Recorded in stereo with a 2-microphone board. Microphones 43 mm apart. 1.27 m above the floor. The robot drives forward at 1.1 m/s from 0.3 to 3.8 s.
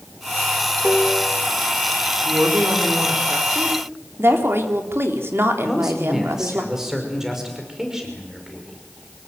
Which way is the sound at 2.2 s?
80° right.